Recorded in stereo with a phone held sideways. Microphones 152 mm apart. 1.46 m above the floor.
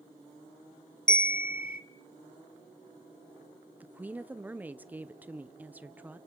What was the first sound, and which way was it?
A bell, 65° left (ahead or behind).